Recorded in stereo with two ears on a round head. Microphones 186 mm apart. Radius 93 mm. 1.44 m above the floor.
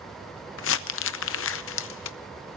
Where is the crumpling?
65° left (ahead or behind), 0.7 m.